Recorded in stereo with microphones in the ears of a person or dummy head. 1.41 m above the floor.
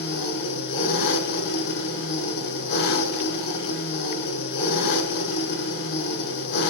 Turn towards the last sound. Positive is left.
turn(degrees=65)  # may be behind; listen again after turning